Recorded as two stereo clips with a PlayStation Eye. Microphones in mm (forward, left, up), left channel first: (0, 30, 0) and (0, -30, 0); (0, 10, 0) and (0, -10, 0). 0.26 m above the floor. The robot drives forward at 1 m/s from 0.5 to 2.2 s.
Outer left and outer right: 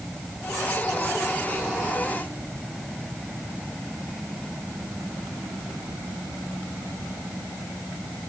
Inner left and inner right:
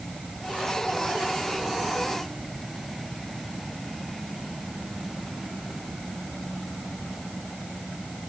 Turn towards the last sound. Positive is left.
No sound to turn to.